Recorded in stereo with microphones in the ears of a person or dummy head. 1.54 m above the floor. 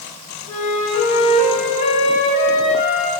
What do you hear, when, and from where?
0.5 s a flute: 40° left (ahead or behind), 2 m